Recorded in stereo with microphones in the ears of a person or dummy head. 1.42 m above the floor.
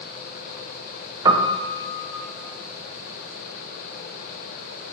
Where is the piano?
20° right (ahead or behind), 0.8 m.